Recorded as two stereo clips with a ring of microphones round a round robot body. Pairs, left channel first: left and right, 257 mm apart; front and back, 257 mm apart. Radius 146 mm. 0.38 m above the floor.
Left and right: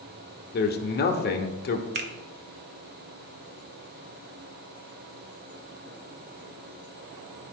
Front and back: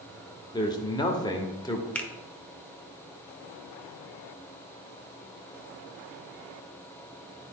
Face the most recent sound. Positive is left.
turn(degrees=-80)